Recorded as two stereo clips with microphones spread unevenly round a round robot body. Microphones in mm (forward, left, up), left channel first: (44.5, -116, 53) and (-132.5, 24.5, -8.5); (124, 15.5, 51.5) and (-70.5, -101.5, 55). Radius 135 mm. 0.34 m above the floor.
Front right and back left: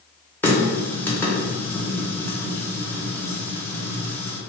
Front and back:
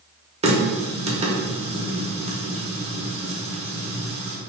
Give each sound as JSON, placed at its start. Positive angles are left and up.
{"t": 0.4, "sound": "a running tap", "azimuth_deg": -145, "distance_m": 0.8}